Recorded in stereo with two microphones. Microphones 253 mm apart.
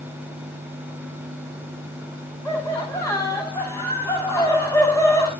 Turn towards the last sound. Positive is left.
turn(degrees=10)  # may be behind; listen again after turning